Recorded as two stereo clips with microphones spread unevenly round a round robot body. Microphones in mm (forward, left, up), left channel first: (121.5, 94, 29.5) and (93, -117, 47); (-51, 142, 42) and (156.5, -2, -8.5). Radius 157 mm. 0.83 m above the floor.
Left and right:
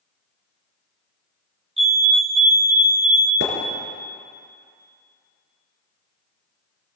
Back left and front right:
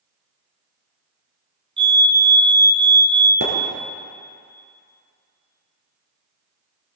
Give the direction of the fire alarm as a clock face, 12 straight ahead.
2 o'clock.